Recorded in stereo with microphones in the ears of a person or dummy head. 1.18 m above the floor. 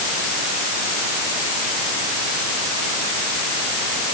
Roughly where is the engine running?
I don't hear an engine running.